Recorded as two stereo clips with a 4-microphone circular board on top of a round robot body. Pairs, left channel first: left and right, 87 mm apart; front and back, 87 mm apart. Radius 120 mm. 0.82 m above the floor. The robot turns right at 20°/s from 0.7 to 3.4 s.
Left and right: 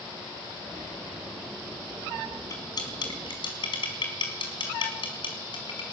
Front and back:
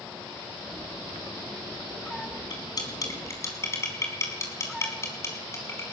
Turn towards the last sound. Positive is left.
turn(degrees=60)